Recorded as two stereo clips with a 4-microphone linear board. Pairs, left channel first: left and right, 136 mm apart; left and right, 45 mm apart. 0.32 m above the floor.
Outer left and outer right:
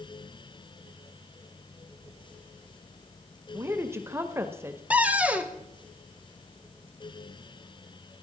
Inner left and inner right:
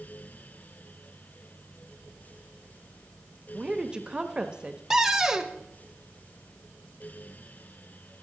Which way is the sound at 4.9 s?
10° right (ahead or behind).